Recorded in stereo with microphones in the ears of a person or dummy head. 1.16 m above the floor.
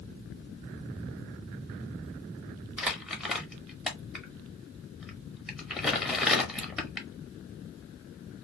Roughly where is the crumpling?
Centre.